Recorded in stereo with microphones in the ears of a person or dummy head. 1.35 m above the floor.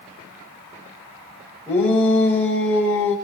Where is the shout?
10° left (ahead or behind), 5 m.